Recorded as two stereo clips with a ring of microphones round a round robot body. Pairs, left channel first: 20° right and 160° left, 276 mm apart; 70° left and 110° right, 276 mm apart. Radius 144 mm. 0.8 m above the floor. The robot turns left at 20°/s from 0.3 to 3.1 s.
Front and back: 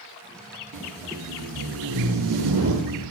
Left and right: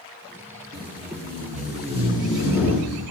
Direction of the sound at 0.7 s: 155° right.